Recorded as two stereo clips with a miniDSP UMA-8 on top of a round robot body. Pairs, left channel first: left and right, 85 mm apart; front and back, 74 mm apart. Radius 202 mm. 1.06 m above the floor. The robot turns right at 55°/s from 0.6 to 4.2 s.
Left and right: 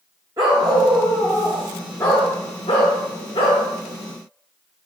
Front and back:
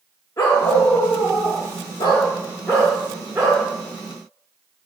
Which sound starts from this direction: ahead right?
A dog barking, at 0.4 s.